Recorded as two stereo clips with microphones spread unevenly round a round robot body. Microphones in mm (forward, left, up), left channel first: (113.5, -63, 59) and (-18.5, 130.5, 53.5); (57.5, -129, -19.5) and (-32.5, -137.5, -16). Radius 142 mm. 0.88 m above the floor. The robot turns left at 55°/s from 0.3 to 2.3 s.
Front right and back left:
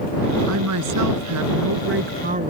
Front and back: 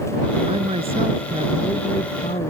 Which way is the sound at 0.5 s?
165° left.